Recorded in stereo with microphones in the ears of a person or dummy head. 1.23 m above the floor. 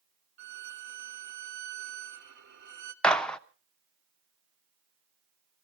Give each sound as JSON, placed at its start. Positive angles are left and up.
{"t": 0.4, "sound": "a violin", "side_deg": -50, "distance_m": 1.2}
{"t": 3.0, "sound": "a gunshot", "side_deg": 10, "distance_m": 0.6}